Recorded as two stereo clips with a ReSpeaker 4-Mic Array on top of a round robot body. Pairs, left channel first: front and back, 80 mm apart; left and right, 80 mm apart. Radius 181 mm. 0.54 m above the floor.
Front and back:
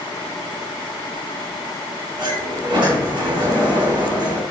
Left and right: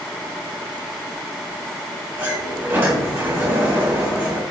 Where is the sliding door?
150° right, 4 m.